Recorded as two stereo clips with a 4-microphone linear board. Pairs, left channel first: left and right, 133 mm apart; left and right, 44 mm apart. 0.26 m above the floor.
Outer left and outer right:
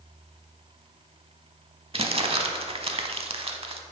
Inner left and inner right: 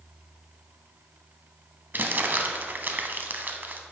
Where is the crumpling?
45° right (ahead or behind), 0.6 m.